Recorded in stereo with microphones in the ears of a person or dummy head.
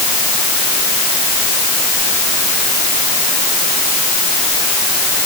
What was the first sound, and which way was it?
Only background noise.